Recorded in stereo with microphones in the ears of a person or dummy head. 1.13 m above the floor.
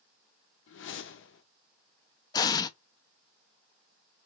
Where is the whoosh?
50° left (ahead or behind), 0.7 m.